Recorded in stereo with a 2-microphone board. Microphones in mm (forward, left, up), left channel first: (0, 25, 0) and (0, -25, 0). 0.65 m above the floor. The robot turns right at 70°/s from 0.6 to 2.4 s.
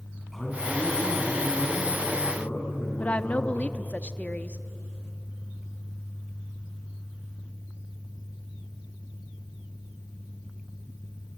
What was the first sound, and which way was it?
A man speaking, 5° left.